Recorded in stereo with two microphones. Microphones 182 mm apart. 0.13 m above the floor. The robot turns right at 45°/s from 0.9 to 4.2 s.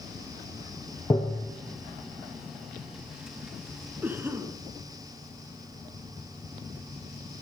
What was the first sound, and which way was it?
Tapping, 20° left (ahead or behind).